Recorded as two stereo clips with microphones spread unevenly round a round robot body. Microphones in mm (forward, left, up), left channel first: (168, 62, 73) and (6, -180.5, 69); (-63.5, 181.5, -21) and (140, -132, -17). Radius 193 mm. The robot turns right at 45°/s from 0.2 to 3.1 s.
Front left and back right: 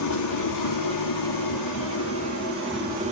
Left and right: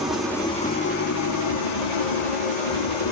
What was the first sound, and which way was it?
An engine running, 30° left.